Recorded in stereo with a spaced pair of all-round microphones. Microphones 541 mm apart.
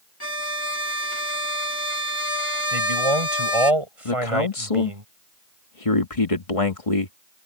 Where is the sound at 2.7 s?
80° right.